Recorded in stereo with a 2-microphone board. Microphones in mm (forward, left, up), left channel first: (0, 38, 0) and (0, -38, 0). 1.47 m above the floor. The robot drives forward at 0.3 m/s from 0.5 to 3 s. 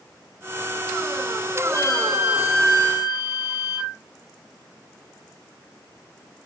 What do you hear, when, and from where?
1.6 s a flute: 35° right (ahead or behind), 5 m